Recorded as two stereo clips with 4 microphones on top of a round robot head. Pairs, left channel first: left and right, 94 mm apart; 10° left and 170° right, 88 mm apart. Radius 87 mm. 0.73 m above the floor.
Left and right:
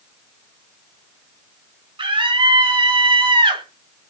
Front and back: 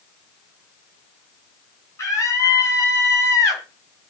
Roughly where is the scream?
Ahead right.